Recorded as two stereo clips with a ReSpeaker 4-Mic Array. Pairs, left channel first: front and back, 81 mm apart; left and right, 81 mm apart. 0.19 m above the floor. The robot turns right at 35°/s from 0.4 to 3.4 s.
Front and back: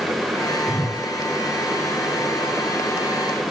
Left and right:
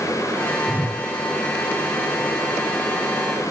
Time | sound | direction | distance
0.7 | a whoosh | 35° left | 2.5 m